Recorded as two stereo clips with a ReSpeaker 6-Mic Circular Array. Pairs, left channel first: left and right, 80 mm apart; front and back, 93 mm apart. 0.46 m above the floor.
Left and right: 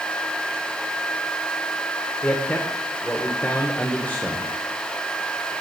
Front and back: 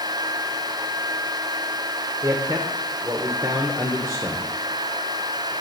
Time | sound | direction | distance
2.2 | a man speaking | 150° left | 1.0 m